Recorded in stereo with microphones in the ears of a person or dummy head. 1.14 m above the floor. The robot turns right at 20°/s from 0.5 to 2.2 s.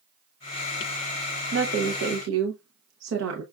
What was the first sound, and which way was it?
A woman speaking, 75° right (ahead or behind).